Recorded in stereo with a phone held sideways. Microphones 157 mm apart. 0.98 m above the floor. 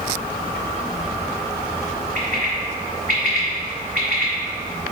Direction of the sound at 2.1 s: 60° right (ahead or behind).